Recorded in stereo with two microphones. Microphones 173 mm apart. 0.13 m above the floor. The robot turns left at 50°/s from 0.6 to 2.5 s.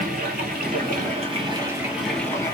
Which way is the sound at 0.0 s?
110° right.